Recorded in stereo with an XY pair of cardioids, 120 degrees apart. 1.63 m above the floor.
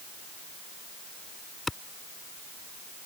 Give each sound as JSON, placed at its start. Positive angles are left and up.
{"t": 1.7, "sound": "a clap", "azimuth_deg": 15}